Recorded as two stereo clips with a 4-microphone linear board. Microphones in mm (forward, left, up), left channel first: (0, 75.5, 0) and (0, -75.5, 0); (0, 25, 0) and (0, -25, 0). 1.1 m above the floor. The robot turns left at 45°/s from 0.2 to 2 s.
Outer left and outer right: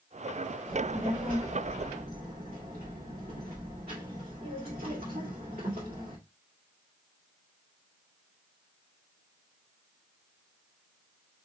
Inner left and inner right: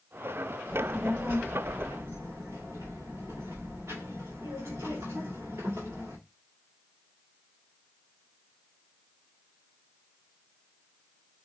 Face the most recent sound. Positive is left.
turn(degrees=-80)